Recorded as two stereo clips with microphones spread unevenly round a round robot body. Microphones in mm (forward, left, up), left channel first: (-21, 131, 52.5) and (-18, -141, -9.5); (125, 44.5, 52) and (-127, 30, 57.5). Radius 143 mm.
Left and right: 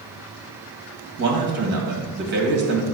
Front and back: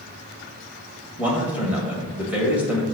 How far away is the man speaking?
About 1.9 m.